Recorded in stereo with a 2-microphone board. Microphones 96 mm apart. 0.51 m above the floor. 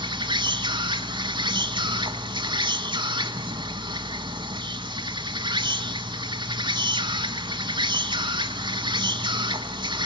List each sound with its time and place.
0.0 s an insect: 55° right (ahead or behind), 1.3 m